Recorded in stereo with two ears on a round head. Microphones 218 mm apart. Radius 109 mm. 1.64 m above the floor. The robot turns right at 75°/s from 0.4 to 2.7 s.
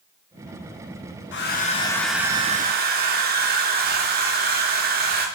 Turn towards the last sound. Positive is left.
turn(degrees=-135)